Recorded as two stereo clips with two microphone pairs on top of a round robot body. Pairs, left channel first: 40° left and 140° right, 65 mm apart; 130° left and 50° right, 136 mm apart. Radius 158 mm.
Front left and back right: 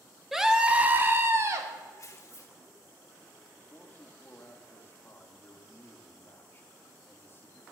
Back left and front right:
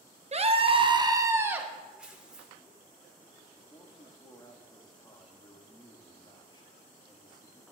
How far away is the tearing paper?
About 1.7 m.